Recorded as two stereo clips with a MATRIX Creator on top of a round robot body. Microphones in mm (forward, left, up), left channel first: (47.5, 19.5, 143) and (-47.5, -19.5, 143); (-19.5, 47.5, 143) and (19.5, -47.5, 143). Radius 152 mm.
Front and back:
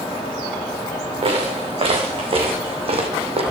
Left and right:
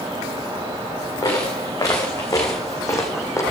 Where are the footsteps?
170° left, 3.5 m; by 3.4 s 175° left, 1.9 m.